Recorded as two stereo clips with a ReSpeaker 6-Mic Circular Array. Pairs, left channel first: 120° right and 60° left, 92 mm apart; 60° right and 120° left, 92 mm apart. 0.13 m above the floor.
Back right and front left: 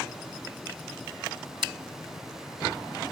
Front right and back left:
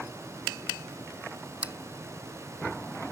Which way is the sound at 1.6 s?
45° left.